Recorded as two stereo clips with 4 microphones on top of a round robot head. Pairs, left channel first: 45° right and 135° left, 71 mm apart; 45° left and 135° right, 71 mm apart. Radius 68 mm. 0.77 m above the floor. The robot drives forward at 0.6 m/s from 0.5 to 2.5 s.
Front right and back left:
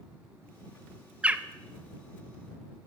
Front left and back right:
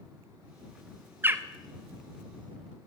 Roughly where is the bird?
Behind.